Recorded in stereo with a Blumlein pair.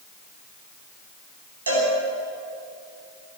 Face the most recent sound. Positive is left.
turn(degrees=-70)